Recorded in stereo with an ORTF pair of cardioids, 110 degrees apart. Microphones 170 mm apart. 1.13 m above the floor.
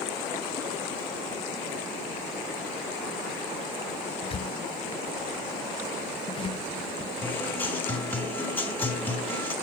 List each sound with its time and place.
4.2 s a squeak: 35° left, 0.6 m
7.2 s a guitar: 10° left, 4 m